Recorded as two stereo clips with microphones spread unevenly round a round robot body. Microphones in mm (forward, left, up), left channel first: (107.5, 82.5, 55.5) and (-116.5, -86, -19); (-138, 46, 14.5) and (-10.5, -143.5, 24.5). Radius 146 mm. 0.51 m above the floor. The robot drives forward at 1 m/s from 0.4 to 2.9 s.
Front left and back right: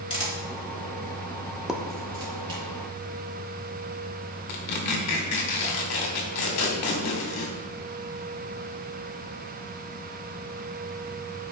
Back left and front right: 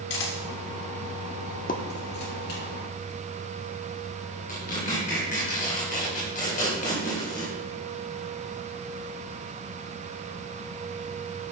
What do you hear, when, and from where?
0.1 s a camera shutter: 110° left, 2.5 m; by 2.6 s 140° left, 4 m
1.7 s a pop: 145° left, 0.9 m; by 1.8 s 155° left, 0.9 m
4.5 s tearing paper: 70° left, 2.5 m